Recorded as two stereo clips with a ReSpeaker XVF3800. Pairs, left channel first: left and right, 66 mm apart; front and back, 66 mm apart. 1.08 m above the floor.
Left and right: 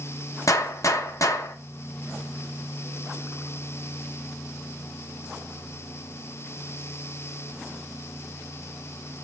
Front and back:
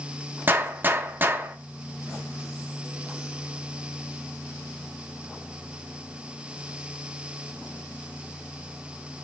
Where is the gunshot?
125° left, 0.8 m.